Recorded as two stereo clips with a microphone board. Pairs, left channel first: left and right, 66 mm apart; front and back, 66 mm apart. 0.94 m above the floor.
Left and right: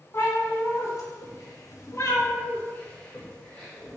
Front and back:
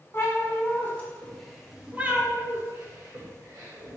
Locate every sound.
0.1 s a cat meowing: 40° left, 1.1 m; by 4.0 s 170° left, 1.3 m